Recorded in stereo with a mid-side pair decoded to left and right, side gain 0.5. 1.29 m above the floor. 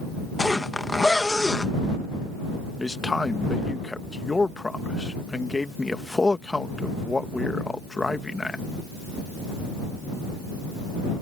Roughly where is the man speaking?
Ahead.